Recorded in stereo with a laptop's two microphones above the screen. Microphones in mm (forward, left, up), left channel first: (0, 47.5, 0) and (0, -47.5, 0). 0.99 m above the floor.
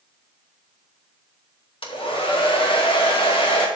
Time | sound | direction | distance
1.8 | a hair dryer | 75° left (ahead or behind) | 2 m